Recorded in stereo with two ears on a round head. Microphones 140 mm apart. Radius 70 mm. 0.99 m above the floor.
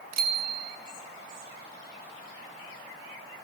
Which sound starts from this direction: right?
A bicycle bell, at 0.1 s.